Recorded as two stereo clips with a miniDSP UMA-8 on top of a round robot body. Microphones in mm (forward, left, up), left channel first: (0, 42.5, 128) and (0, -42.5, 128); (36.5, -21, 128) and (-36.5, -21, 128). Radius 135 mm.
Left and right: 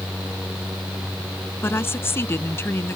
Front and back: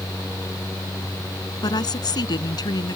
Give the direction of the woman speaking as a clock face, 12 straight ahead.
11 o'clock.